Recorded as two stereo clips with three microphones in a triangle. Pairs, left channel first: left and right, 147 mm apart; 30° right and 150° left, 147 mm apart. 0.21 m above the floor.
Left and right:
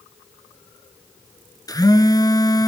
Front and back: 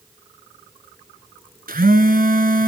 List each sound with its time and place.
1.7 s a phone buzzing: 155° left, 1.0 m